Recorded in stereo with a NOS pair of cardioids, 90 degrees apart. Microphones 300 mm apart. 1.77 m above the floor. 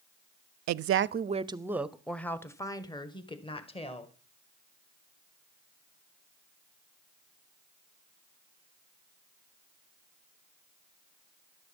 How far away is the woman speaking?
About 0.6 m.